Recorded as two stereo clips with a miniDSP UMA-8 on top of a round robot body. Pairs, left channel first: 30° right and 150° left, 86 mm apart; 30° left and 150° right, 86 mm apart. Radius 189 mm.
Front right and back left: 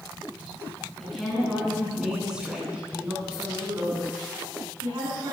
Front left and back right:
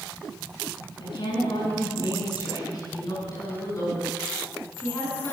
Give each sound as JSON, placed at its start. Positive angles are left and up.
{"t": 1.0, "sound": "a woman speaking", "azimuth_deg": 55, "distance_m": 7.0}